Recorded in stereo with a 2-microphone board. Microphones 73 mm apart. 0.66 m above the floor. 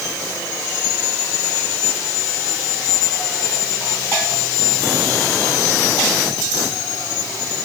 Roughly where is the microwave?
No microwave in this recording.